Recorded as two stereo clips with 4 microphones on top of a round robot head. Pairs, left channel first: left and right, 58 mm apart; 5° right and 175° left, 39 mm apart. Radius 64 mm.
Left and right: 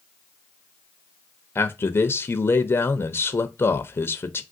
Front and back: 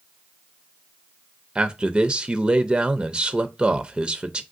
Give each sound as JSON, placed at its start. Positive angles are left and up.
{"t": 1.6, "sound": "a man speaking", "azimuth_deg": 120, "distance_m": 0.6}